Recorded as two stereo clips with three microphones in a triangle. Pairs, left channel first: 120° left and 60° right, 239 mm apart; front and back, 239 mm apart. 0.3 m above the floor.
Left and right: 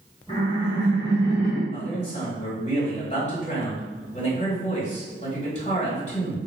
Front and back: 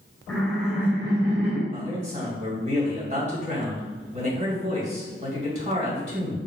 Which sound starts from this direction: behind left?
A man speaking, at 1.7 s.